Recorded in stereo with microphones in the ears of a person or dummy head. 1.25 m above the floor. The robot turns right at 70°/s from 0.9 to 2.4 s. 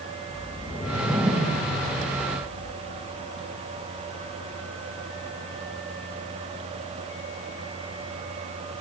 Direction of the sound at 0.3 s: 175° left.